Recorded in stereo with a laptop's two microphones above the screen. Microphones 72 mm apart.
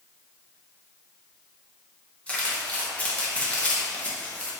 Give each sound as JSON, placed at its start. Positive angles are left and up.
{"t": 2.3, "sound": "crumpling", "side_deg": 20, "distance_m": 1.0}